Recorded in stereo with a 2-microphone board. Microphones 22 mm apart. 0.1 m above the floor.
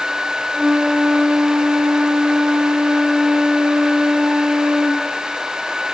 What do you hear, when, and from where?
0.5 s a flute: 50° right (ahead or behind), 3 m